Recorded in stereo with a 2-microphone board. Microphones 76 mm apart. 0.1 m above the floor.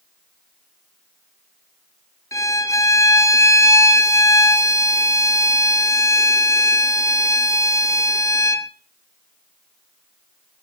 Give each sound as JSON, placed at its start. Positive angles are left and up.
{"t": 2.3, "sound": "a violin", "side_deg": 45, "distance_m": 0.7}